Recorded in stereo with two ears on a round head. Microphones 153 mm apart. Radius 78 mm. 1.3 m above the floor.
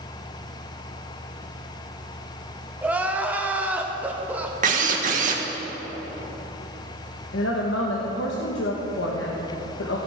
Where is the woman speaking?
85° left, 1.4 m.